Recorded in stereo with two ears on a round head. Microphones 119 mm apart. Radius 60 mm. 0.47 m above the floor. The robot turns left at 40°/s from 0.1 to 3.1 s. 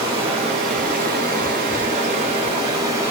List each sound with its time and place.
0.0 s running water: 40° right, 1.4 m; by 3.1 s 160° right, 1.4 m